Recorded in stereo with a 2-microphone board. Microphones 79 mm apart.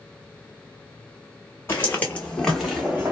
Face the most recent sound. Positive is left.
turn(degrees=-15)  # may be behind; listen again after turning